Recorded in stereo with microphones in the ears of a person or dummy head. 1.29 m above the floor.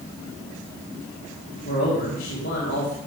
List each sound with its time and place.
1.6 s a man speaking: 50° left (ahead or behind), 1.8 m